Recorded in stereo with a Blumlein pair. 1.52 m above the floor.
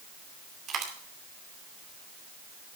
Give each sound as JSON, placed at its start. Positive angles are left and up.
{"t": 0.7, "sound": "a dropped coin", "azimuth_deg": -30, "distance_m": 2.5}